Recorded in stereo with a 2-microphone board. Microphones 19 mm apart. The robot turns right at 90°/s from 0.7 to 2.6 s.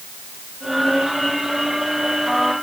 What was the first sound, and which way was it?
Only background noise.